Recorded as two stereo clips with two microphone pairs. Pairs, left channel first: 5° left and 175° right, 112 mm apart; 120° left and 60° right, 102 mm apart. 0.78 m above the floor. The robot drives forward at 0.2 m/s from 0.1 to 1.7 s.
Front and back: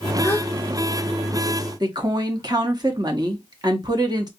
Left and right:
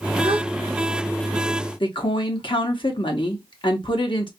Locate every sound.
0.2 s a gasp: 65° right, 0.9 m
1.8 s a woman speaking: 140° left, 1.0 m